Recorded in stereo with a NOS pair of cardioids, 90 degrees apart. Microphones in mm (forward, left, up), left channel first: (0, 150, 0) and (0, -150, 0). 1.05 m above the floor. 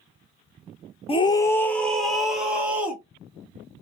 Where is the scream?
20° left, 0.6 m; by 3.0 s 5° right, 1.7 m.